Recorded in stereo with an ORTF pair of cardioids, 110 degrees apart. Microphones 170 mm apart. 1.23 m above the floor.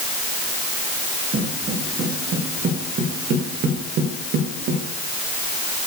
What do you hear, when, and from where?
1.3 s footsteps: 45° right, 5.5 m; by 4.8 s 75° right, 7 m